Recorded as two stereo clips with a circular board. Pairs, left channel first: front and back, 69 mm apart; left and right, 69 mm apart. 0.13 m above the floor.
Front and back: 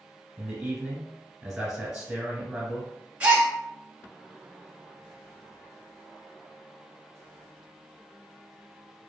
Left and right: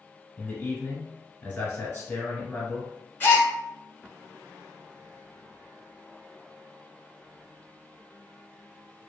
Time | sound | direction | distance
0.4 | a man speaking | 125° left | 1.2 m
3.2 | a gasp | 125° left | 0.8 m